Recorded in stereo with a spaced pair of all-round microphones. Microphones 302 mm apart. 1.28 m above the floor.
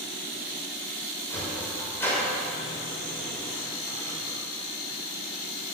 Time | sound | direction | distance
1.3 | a sliding door | 10° left (ahead or behind) | 6 m